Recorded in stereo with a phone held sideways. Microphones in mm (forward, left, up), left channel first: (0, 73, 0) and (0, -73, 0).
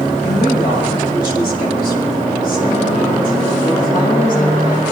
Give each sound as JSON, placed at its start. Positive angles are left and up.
{"t": 0.2, "sound": "a woman speaking", "side_deg": 80, "distance_m": 9.0}